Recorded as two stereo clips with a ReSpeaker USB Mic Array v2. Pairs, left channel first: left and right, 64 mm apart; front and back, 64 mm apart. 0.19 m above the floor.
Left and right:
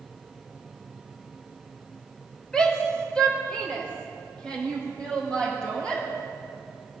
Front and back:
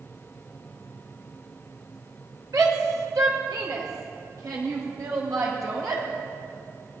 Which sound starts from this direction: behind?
A shout, at 2.5 s.